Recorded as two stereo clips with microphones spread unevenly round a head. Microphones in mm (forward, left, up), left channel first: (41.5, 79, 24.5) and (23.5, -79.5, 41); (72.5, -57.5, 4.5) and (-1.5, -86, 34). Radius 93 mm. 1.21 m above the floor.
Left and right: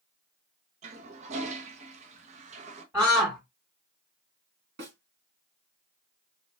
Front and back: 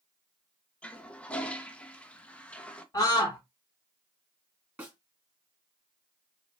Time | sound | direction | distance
0.8 | a toilet flushing | 70° right | 0.6 m
2.9 | a scream | 15° right | 1.8 m
4.8 | a snare drum | 105° right | 2.0 m